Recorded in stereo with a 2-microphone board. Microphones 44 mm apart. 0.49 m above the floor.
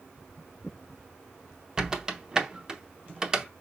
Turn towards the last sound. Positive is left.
turn(degrees=-15)  # may be behind; listen again after turning